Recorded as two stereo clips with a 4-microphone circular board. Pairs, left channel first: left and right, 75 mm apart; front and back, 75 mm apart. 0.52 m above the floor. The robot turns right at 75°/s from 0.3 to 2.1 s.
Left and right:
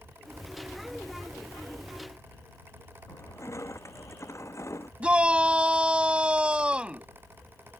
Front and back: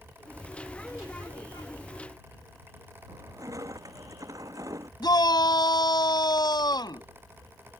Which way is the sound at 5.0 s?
15° right.